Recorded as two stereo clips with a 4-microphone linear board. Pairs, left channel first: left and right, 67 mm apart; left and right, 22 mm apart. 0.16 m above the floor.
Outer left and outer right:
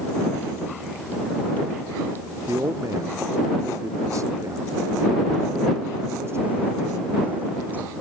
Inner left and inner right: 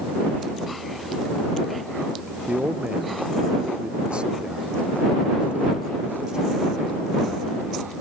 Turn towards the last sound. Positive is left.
turn(degrees=-35)  # may be behind; listen again after turning